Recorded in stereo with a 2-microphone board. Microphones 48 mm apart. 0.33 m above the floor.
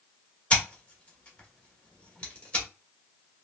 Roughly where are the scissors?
Left.